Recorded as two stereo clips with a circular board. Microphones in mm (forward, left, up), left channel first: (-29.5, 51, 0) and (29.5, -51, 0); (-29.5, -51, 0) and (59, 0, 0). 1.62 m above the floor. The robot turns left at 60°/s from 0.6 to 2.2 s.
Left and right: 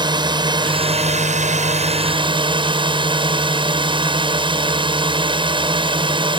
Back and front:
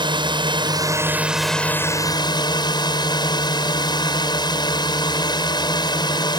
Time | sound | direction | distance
0.0 | a drone | 10° right | ?